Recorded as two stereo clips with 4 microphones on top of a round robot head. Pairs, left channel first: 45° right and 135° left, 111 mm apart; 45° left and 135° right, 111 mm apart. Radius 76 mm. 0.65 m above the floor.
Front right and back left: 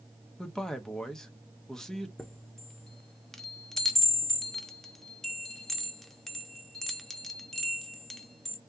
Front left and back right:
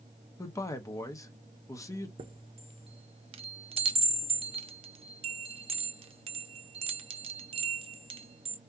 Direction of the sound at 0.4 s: 35° left.